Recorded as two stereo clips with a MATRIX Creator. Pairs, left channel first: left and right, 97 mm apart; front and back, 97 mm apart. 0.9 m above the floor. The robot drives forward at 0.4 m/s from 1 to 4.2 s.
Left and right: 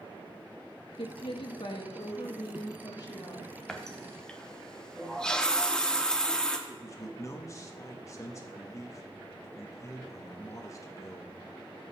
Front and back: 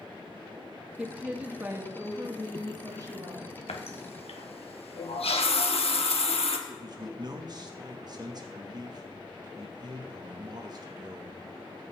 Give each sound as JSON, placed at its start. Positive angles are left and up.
{"t": 1.0, "sound": "a woman speaking", "azimuth_deg": 100, "distance_m": 1.3}
{"t": 3.7, "sound": "a running tap", "azimuth_deg": 5, "distance_m": 1.1}
{"t": 6.7, "sound": "a man speaking", "azimuth_deg": 145, "distance_m": 1.3}